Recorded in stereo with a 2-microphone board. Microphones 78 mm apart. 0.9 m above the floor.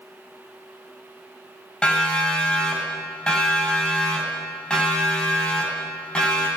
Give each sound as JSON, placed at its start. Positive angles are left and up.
{"t": 1.8, "sound": "a siren", "side_deg": 10, "distance_m": 8.0}